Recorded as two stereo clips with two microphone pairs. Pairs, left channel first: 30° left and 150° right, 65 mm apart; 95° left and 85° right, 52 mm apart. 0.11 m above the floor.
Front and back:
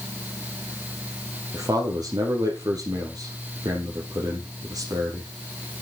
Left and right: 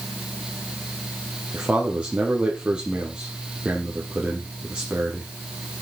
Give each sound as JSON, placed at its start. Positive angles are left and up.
{"t": 1.5, "sound": "a man speaking", "azimuth_deg": -155, "distance_m": 2.5}